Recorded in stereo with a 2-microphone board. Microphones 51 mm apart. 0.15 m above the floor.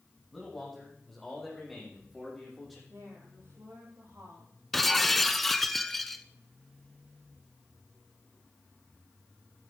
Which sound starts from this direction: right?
A woman speaking, at 2.9 s.